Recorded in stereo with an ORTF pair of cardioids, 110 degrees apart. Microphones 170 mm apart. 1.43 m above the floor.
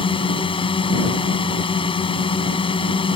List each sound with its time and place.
0.0 s a drone: 30° left